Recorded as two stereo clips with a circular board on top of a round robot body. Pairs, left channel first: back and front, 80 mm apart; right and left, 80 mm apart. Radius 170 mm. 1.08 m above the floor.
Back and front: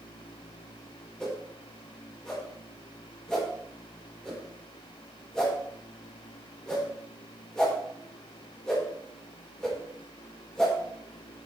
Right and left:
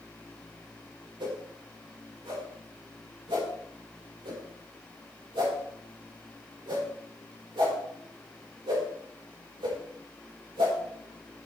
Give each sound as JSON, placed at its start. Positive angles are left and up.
{"t": 1.2, "sound": "a whoosh", "azimuth_deg": 100, "distance_m": 4.5}